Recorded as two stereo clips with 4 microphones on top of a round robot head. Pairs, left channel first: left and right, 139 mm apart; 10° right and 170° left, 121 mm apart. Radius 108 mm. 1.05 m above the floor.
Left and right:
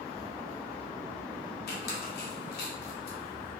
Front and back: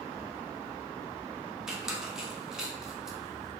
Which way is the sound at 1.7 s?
85° left.